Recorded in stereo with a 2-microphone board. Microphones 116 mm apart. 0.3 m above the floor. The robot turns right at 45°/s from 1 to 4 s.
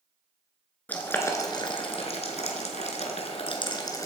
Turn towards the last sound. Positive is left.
turn(degrees=30)  # may be behind; listen again after turning